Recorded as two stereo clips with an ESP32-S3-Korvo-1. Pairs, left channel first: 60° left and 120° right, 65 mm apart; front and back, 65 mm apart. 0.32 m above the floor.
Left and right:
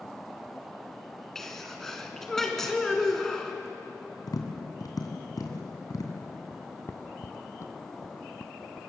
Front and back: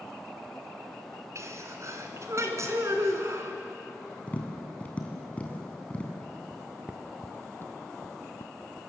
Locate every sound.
1.4 s a sneeze: 145° left, 3 m
4.3 s tapping: 70° left, 3 m
6.5 s footsteps: 120° left, 1.8 m; by 8.9 s 30° right, 2.0 m